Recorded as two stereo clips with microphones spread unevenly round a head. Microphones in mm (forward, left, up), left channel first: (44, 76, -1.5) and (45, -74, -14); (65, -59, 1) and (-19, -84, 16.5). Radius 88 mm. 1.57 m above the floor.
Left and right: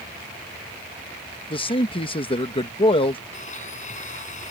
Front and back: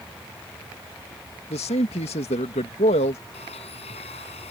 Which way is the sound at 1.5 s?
40° left.